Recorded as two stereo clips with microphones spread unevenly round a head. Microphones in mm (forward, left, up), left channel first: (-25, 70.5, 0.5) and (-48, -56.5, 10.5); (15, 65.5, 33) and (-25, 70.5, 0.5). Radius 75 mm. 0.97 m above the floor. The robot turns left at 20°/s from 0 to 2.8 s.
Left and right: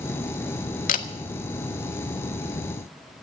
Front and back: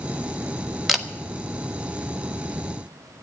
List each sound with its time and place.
0.9 s a camera shutter: 100° left, 1.2 m; by 1.1 s 95° left, 1.2 m